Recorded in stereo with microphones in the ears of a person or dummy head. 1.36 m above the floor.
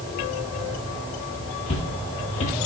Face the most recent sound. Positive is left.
turn(degrees=35)  # may be behind; listen again after turning